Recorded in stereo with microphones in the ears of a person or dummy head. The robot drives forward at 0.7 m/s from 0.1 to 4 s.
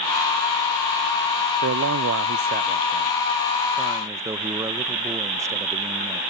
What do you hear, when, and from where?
1.6 s a man speaking: 55° right (ahead or behind); by 6.2 s 20° right (ahead or behind)